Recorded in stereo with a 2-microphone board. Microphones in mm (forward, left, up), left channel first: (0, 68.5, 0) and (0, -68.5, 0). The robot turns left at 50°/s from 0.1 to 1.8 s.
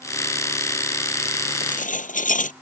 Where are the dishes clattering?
80° left; by 2.5 s 75° left (ahead or behind).